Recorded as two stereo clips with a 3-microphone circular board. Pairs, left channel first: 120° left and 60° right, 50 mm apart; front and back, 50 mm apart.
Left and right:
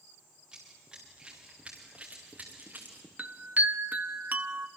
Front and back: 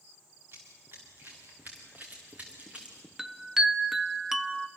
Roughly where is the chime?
Right.